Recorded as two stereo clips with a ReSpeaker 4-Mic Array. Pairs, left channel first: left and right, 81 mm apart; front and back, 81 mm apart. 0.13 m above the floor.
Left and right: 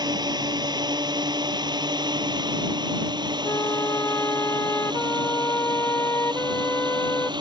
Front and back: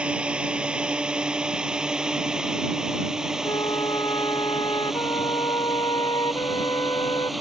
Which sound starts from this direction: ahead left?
A flute, at 3.4 s.